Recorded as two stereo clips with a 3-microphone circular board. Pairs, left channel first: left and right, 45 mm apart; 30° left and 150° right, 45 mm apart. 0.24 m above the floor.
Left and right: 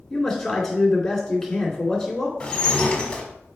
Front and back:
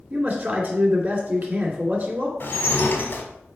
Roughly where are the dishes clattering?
Ahead left.